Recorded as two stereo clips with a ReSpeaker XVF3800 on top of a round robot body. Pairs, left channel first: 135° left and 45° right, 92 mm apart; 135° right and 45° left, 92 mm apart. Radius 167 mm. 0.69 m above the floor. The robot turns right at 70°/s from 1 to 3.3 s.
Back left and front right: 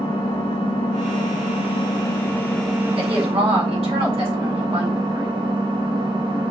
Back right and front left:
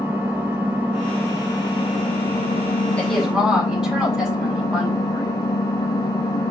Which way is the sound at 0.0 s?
115° left.